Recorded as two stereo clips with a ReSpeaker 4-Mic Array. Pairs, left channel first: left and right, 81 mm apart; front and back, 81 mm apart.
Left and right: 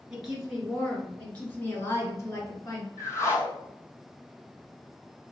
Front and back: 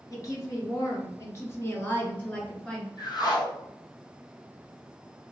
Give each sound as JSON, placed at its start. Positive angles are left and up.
{"t": 0.1, "sound": "a woman speaking", "azimuth_deg": -10, "distance_m": 1.5}
{"t": 3.0, "sound": "a whoosh", "azimuth_deg": 35, "distance_m": 0.8}